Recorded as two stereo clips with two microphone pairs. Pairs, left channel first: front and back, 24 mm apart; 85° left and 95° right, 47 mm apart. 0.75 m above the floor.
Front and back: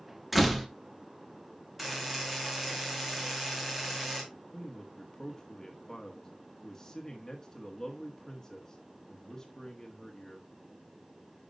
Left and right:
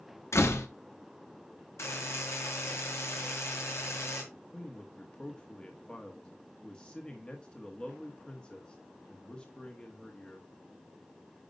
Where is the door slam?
95° left, 0.9 m.